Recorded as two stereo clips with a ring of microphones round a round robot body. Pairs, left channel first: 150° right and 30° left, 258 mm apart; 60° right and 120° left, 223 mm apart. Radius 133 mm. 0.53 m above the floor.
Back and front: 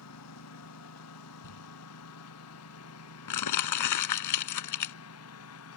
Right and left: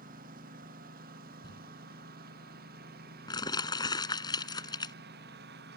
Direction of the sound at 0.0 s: Straight behind.